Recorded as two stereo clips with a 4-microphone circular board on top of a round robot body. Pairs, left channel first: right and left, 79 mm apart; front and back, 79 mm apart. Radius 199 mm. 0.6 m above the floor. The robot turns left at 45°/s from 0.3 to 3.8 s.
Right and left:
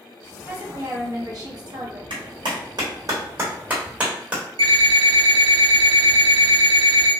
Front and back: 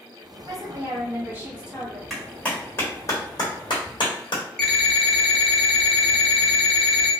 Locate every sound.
0.5 s a woman speaking: 160° left, 1.6 m; by 2.0 s 90° left, 1.6 m
2.1 s a clap: 90° left, 1.2 m; by 4.4 s 15° left, 1.2 m
4.6 s an alarm clock: 85° left, 0.9 m